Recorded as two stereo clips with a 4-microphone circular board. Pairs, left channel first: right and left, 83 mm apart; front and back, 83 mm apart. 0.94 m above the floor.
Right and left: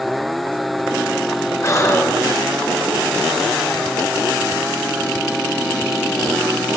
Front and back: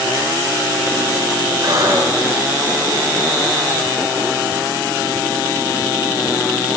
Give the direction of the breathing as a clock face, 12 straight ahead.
5 o'clock.